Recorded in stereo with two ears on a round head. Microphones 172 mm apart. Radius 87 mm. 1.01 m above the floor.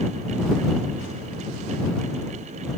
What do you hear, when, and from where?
Only background noise.